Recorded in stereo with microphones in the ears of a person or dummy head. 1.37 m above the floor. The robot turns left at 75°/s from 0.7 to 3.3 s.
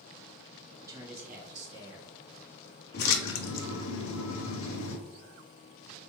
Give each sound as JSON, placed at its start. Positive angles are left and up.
{"t": 0.8, "sound": "a man speaking", "azimuth_deg": -15, "distance_m": 1.5}
{"t": 2.9, "sound": "a splash", "side_deg": 50, "distance_m": 0.6}